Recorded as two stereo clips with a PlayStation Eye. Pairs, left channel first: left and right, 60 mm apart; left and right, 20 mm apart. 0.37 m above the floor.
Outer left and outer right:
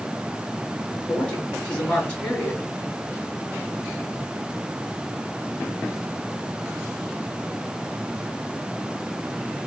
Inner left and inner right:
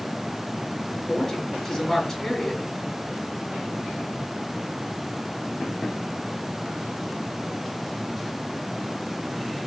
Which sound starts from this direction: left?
A woman speaking, at 1.1 s.